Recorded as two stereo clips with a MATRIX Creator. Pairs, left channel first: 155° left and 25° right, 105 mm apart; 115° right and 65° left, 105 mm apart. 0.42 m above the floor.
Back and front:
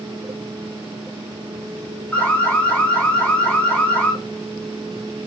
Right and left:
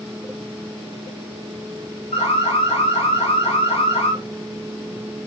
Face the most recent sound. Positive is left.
turn(degrees=-125)